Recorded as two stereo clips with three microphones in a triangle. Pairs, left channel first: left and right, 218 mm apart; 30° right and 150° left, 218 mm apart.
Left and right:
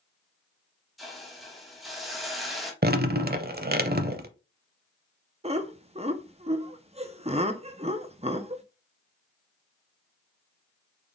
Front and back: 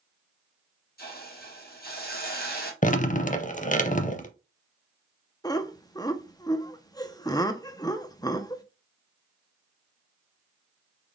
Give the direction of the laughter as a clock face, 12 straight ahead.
3 o'clock.